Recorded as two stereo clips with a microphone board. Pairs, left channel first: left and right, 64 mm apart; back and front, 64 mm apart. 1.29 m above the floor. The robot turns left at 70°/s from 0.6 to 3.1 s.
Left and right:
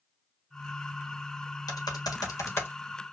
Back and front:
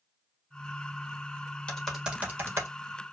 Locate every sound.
1.7 s typing on a keyboard: 105° left, 1.5 m; by 2.7 s 35° left, 1.5 m